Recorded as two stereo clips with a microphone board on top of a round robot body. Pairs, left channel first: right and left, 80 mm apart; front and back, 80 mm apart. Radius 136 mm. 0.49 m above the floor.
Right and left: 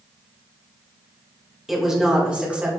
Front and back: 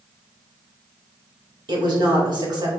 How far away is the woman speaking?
About 2.5 m.